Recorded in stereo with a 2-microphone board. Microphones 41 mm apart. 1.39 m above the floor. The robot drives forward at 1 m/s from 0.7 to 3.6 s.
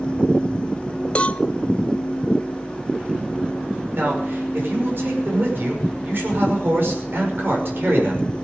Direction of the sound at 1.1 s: 30° left (ahead or behind).